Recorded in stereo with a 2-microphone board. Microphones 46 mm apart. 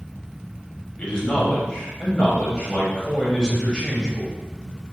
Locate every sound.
1.0 s a man speaking: 20° left (ahead or behind), 0.9 m